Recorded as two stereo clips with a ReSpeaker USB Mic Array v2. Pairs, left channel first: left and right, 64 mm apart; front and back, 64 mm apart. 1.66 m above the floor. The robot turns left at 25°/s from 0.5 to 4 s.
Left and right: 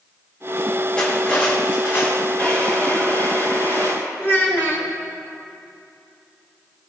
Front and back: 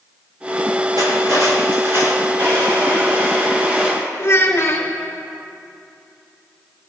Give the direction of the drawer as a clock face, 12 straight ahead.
7 o'clock.